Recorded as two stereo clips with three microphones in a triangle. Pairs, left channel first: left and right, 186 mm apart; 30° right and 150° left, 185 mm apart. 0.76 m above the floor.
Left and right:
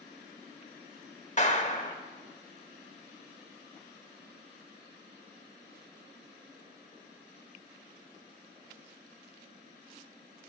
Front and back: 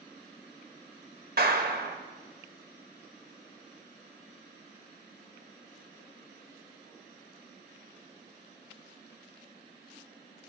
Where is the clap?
130° left, 1.4 m.